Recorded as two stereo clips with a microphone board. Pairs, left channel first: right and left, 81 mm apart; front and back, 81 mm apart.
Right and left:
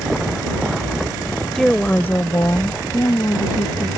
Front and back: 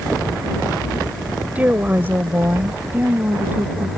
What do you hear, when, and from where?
1.6 s a woman speaking: 175° right; by 3.9 s 115° right